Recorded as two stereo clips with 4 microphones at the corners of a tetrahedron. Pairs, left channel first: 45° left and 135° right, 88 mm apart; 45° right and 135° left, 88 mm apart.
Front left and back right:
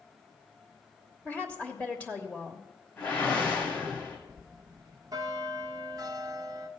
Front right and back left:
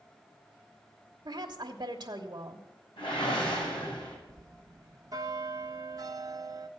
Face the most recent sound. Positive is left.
turn(degrees=175)